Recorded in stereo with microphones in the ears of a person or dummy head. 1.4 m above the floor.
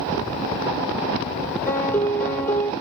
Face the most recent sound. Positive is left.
turn(degrees=15)  # may be behind; listen again after turning